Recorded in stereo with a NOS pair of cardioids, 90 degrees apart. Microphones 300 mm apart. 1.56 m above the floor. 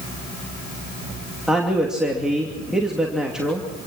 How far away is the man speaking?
About 2.5 m.